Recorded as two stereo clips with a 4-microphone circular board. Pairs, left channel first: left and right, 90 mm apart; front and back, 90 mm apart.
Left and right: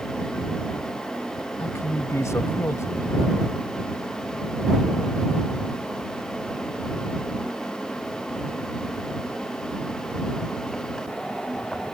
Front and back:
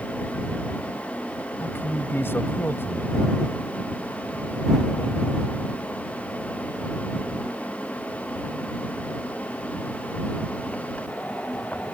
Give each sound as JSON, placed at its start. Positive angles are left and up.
{"t": 1.6, "sound": "a man speaking", "azimuth_deg": 55}